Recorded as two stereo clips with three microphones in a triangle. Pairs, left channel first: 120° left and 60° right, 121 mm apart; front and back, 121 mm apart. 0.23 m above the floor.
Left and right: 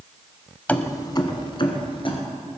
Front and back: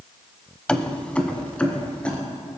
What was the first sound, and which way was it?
Keys jangling, 70° left.